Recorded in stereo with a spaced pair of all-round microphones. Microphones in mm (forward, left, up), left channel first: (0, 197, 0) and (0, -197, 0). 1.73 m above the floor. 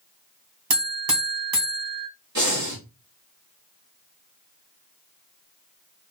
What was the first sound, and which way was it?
A buzzer, 60° right (ahead or behind).